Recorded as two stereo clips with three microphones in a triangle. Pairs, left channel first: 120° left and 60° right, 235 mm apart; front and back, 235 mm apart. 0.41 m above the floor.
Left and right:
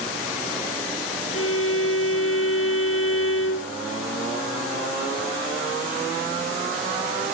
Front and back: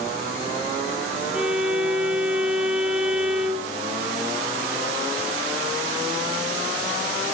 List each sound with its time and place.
1.3 s a violin: 95° left, 2.5 m